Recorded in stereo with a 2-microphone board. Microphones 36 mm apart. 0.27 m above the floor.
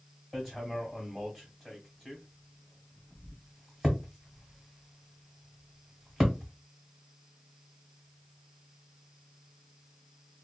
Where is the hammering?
5° right (ahead or behind), 1.3 m.